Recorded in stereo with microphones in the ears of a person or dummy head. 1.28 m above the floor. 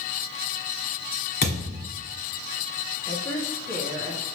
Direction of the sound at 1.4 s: 30° left (ahead or behind).